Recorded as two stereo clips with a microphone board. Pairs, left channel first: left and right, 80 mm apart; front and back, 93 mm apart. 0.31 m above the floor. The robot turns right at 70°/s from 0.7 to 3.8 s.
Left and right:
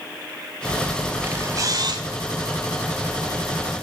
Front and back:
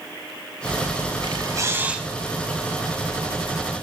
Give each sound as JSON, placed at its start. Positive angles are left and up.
{"t": 1.2, "sound": "a camera shutter", "azimuth_deg": -155, "distance_m": 0.5}